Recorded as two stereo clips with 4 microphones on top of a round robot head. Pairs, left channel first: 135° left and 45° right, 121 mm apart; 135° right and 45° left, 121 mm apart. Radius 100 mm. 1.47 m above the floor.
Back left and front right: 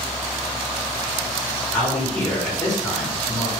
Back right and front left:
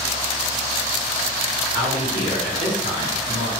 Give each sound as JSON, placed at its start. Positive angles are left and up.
{"t": 1.7, "sound": "a man speaking", "azimuth_deg": 60, "distance_m": 1.4}